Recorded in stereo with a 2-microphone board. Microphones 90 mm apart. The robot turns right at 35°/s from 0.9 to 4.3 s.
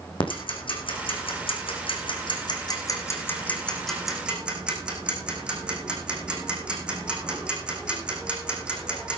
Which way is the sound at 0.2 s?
70° left (ahead or behind).